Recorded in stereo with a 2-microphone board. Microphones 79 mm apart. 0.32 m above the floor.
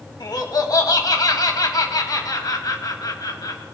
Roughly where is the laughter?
Left.